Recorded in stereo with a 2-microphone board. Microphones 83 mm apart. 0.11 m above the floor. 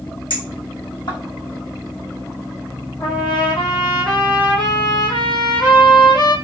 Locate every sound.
0.3 s a clink: 75° left (ahead or behind), 3 m
3.0 s a trumpet: 75° left (ahead or behind), 2 m